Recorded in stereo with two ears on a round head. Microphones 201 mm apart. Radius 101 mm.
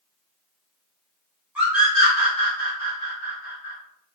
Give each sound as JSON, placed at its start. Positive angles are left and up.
{"t": 1.6, "sound": "a scream", "side_deg": -5, "distance_m": 1.9}